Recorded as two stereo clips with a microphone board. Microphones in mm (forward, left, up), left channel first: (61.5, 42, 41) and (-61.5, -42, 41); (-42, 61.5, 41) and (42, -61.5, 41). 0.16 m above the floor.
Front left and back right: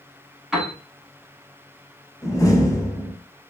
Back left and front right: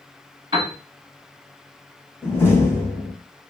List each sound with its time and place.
0.5 s a piano: 65° right, 1.1 m
2.2 s a door slam: 70° left, 0.9 m